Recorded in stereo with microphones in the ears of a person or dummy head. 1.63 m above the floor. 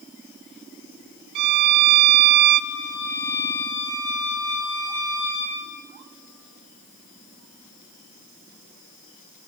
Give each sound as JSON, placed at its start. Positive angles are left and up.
{"t": 1.4, "sound": "a violin", "side_deg": -50, "distance_m": 0.5}
{"t": 2.7, "sound": "a violin", "side_deg": 20, "distance_m": 2.5}